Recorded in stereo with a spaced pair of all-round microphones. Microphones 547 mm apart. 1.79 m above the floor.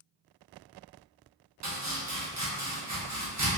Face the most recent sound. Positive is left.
turn(degrees=-30)  # may be behind; listen again after turning